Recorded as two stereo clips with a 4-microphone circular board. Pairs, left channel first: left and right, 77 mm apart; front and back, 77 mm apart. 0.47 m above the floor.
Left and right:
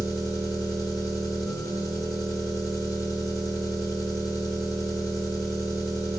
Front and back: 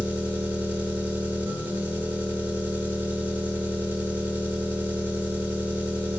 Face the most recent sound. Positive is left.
turn(degrees=120)